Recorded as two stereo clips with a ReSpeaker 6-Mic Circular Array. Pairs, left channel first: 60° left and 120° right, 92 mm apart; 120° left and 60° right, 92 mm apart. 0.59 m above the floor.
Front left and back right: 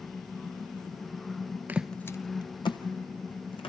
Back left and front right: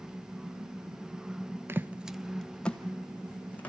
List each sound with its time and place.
1.7 s footsteps: 85° right, 0.6 m; by 3.7 s 45° left, 2.5 m